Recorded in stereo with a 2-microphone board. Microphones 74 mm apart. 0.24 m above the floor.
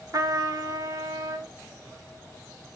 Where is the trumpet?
50° right (ahead or behind), 0.8 m.